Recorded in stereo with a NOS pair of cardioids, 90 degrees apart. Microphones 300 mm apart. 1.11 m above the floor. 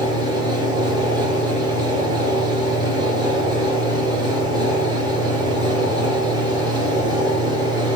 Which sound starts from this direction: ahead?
A fan, at 0.0 s.